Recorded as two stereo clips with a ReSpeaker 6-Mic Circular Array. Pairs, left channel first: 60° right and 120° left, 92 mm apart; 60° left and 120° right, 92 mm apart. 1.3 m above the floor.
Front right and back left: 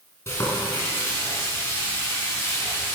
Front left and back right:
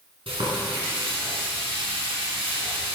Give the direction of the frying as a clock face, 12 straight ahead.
4 o'clock.